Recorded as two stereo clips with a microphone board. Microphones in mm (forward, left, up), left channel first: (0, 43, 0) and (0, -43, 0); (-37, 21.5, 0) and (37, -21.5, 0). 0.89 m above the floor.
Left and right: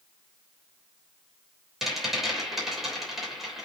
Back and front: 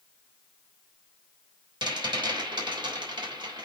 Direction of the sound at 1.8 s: 5° right.